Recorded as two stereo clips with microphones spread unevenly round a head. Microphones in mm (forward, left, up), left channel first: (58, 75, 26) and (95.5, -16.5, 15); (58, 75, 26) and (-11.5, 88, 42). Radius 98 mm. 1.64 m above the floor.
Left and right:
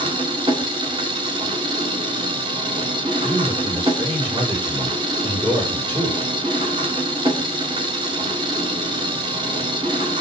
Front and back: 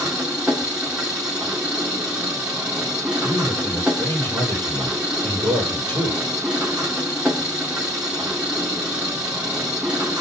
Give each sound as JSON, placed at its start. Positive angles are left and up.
{"t": 0.0, "sound": "an engine running", "azimuth_deg": -120, "distance_m": 1.6}
{"t": 3.2, "sound": "a man speaking", "azimuth_deg": -130, "distance_m": 8.5}